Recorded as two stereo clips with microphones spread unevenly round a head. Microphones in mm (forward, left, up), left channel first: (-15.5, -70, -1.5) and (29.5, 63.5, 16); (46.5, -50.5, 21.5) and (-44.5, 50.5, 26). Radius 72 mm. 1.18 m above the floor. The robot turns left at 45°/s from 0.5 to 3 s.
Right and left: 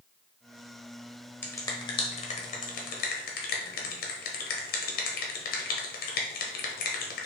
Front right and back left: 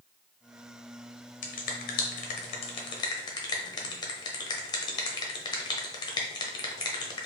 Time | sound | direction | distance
1.4 | a finger snap | 35° right | 1.0 m